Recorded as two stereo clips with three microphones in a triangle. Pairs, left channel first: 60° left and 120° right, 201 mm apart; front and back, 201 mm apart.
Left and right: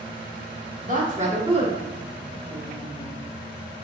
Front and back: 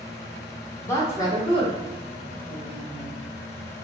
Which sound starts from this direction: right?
A woman speaking, at 0.8 s.